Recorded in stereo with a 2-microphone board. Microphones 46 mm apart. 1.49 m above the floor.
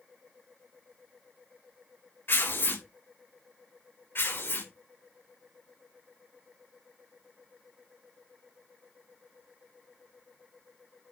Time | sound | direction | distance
2.3 | tearing paper | 60° left (ahead or behind) | 4.5 m
4.2 | tearing paper | 65° left (ahead or behind) | 4.5 m